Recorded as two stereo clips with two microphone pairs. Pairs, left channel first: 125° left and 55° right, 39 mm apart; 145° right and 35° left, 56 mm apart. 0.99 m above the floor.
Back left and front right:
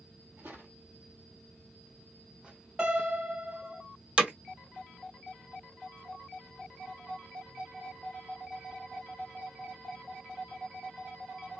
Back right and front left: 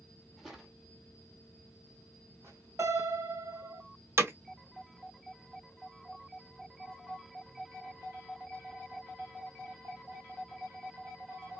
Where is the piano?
10° left, 3 m.